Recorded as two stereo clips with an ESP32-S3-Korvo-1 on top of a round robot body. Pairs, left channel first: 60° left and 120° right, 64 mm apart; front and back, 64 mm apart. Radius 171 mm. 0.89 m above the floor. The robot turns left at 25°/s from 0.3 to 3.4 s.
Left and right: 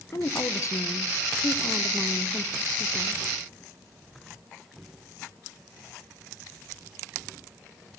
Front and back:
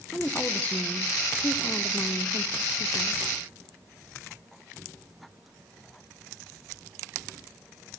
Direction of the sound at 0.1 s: 60° left.